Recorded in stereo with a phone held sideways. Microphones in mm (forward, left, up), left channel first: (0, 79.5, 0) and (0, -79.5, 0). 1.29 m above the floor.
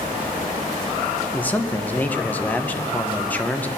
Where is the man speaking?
10° left (ahead or behind), 0.8 m.